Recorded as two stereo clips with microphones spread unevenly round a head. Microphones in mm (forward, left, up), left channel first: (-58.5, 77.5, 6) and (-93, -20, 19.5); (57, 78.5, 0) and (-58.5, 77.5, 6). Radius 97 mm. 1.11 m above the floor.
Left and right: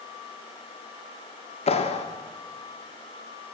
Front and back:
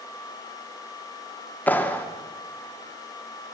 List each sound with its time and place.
1.7 s a clap: 75° left, 2.5 m